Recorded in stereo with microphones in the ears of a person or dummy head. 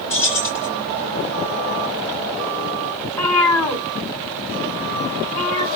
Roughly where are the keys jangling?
Centre.